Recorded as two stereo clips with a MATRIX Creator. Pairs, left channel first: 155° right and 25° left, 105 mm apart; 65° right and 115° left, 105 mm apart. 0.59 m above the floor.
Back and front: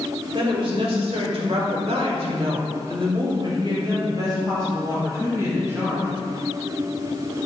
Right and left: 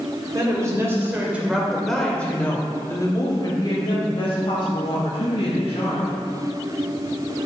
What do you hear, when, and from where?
0.3 s a woman speaking: 60° left, 3 m; by 6.1 s 45° right, 5 m